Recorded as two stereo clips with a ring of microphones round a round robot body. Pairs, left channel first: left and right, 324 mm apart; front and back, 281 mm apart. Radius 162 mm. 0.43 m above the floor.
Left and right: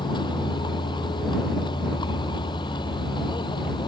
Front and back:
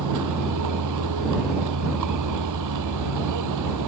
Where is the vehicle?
165° left.